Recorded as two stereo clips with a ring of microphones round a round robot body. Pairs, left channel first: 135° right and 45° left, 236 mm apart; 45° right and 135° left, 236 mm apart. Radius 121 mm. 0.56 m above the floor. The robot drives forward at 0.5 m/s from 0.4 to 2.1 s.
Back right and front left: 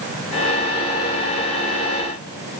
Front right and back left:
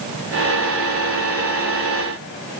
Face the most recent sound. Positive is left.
No sound to turn to.